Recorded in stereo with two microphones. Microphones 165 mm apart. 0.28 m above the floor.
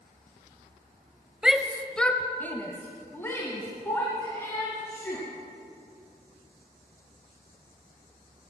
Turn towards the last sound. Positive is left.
turn(degrees=15)  # may be behind; listen again after turning